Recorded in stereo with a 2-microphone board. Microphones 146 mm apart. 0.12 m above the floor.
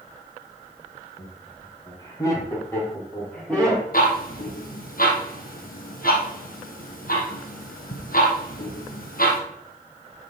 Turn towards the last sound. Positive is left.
turn(degrees=70)  # may be behind; listen again after turning